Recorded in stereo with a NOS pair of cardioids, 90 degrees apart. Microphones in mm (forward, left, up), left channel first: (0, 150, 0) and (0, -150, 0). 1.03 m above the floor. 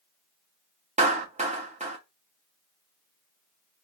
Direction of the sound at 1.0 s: 20° right.